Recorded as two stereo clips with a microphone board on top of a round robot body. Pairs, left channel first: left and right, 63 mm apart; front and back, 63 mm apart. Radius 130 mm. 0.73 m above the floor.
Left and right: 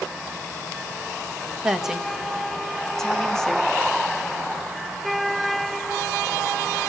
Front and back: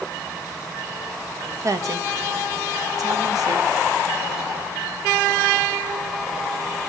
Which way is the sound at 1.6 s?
165° right.